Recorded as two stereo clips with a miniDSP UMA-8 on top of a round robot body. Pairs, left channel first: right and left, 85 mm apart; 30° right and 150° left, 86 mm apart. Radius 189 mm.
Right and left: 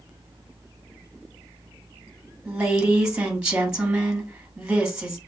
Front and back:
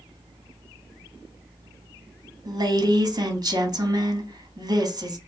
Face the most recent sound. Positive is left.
turn(degrees=165)